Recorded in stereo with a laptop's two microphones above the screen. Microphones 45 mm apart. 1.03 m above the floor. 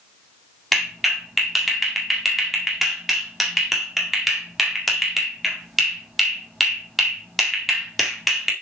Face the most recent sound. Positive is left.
turn(degrees=0)  # may be behind; listen again after turning